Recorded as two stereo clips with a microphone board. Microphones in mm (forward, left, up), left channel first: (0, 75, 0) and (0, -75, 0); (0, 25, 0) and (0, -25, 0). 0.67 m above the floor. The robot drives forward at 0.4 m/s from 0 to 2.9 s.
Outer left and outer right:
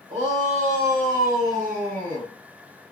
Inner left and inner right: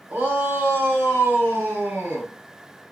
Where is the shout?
50° right (ahead or behind), 2.5 m; by 2.3 s 65° right (ahead or behind), 2 m.